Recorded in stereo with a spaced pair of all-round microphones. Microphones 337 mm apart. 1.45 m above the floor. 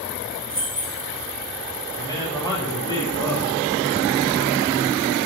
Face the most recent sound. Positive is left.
turn(degrees=10)  # may be behind; listen again after turning